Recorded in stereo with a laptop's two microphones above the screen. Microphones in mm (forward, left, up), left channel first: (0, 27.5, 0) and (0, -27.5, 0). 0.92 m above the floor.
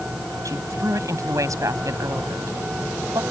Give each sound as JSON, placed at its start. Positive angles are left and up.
{"t": 0.5, "sound": "a woman speaking", "side_deg": -75}